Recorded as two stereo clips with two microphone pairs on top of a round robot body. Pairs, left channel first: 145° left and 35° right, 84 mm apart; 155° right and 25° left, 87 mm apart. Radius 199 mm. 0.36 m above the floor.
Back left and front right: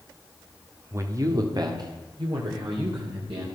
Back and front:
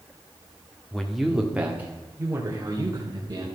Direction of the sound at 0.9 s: 75° right.